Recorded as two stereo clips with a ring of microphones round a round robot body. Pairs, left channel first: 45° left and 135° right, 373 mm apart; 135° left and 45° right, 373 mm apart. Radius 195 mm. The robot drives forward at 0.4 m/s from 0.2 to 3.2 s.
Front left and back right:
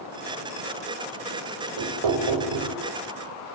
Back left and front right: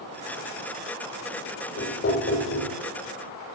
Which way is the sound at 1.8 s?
165° right.